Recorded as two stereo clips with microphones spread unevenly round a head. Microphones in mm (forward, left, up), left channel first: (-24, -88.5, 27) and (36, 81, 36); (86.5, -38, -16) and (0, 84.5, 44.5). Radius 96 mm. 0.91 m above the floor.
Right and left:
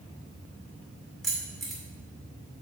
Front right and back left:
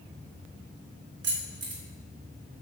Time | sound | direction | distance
1.2 | keys jangling | 160° left | 2 m